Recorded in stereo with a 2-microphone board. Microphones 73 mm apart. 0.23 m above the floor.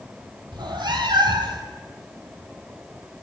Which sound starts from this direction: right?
A cat meowing, at 0.5 s.